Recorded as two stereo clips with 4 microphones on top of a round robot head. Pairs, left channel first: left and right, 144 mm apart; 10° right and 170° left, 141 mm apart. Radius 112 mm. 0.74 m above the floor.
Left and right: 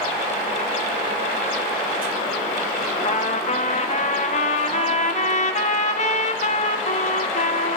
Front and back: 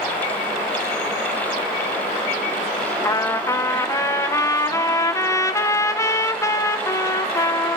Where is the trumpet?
60° left, 0.9 m.